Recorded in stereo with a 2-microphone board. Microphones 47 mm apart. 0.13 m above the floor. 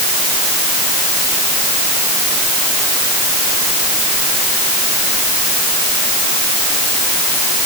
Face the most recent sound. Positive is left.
No sound to turn to.